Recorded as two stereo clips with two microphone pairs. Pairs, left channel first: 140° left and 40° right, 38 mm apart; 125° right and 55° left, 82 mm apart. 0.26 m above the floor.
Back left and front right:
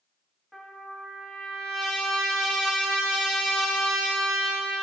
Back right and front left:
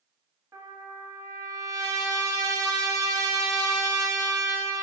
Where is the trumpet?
45° left, 0.5 m.